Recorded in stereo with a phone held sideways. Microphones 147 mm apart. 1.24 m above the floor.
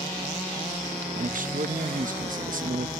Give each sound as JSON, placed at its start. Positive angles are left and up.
{"t": 1.1, "sound": "a man speaking", "side_deg": -70}